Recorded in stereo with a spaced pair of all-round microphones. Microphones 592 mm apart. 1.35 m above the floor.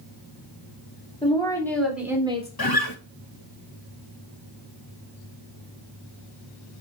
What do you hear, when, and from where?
1.2 s a woman speaking: 10° left (ahead or behind), 4.5 m; by 2.5 s 10° right (ahead or behind), 4 m
2.6 s a guitar: 40° left (ahead or behind), 1.3 m